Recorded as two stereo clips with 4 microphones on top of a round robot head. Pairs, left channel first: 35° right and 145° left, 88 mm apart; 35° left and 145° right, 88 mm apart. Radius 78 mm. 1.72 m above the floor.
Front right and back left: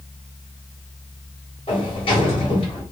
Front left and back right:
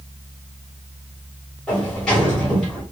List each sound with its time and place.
1.7 s a sliding door: 45° right, 1.7 m